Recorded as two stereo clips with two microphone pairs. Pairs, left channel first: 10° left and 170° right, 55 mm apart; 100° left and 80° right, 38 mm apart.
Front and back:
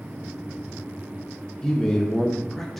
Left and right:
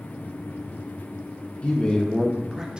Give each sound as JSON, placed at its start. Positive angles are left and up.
{"t": 1.6, "sound": "a man speaking", "azimuth_deg": 90, "distance_m": 0.7}